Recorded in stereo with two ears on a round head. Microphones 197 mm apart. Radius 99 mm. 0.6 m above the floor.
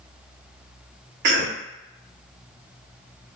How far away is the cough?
About 1.0 m.